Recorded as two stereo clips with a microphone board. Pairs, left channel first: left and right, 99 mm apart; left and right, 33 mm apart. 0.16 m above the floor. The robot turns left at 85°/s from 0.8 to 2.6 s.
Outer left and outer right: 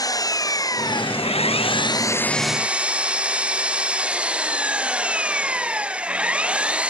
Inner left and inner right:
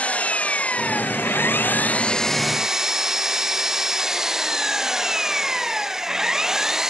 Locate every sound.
0.0 s an engine running: 140° left; by 6.9 s 10° right